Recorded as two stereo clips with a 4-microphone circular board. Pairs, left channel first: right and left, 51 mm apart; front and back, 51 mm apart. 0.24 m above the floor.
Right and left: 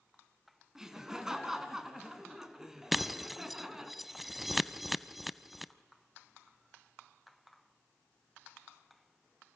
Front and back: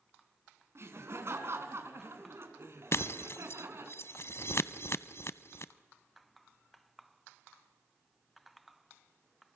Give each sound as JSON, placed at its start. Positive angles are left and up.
{"t": 0.8, "sound": "laughter", "azimuth_deg": 170, "distance_m": 2.5}
{"t": 2.9, "sound": "breaking glass", "azimuth_deg": 5, "distance_m": 0.5}